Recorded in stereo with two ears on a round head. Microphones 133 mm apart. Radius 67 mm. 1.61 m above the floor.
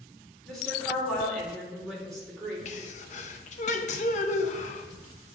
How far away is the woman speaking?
About 2.5 m.